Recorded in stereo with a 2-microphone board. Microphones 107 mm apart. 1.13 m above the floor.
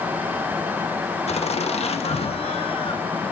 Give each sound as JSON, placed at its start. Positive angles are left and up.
{"t": 1.3, "sound": "laughter", "side_deg": 75, "distance_m": 1.9}